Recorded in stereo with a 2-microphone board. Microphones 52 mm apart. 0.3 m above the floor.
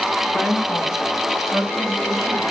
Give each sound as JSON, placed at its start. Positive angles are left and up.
{"t": 0.3, "sound": "a woman speaking", "side_deg": 35, "distance_m": 2.5}